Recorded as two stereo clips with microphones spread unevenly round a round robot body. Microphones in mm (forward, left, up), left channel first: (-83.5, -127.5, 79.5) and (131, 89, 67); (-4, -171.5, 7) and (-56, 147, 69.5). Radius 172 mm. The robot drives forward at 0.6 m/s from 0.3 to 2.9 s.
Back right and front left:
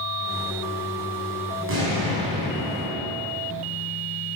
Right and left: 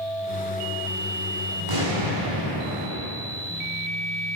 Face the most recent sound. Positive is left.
turn(degrees=105)